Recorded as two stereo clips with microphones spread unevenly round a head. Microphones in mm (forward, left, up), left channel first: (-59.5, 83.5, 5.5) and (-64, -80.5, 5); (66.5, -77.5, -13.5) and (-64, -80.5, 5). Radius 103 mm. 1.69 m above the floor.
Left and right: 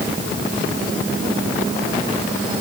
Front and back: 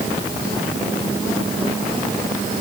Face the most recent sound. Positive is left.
No sound to turn to.